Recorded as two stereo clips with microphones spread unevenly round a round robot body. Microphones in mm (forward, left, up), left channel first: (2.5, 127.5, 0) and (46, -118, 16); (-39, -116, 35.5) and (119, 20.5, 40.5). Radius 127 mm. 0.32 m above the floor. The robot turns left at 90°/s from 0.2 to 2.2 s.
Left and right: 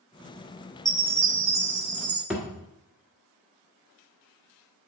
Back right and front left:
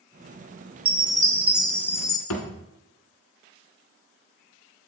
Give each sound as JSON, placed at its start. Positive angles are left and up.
{"t": 0.8, "sound": "a chime", "azimuth_deg": 20, "distance_m": 1.1}
{"t": 2.3, "sound": "a thud", "azimuth_deg": -165, "distance_m": 1.3}